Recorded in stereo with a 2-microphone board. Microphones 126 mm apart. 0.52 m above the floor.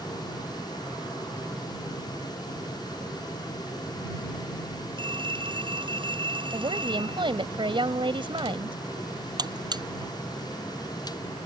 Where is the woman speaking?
40° right (ahead or behind).